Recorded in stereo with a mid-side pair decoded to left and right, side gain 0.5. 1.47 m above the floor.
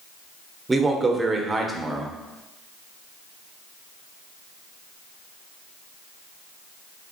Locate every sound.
0.7 s a man speaking: 20° right, 0.8 m